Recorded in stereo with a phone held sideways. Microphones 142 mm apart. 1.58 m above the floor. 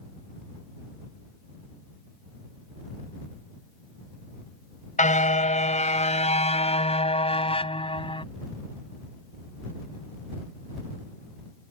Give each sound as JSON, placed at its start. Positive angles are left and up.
{"t": 5.0, "sound": "a car horn", "side_deg": 60}